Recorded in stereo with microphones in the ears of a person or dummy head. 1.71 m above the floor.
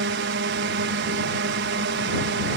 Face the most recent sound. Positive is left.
turn(degrees=-60)  # may be behind; listen again after turning